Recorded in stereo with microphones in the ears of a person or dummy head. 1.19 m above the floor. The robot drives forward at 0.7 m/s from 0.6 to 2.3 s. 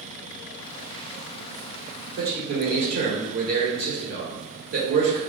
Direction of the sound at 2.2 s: 50° right (ahead or behind).